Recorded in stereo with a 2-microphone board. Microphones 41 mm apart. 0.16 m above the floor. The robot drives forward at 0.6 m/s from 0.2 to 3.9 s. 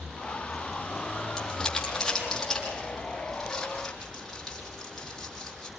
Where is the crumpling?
10° left (ahead or behind), 5.5 m; by 5.7 s 5° left (ahead or behind), 7 m.